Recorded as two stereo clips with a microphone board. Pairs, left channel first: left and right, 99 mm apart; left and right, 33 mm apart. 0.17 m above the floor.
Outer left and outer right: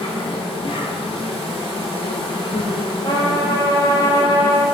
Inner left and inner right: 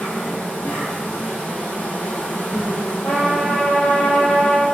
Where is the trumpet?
35° left (ahead or behind), 0.8 m.